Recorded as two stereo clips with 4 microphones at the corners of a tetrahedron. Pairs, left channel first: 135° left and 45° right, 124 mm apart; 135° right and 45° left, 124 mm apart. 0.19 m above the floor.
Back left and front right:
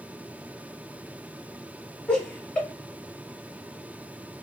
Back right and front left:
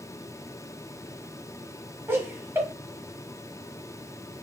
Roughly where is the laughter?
Left.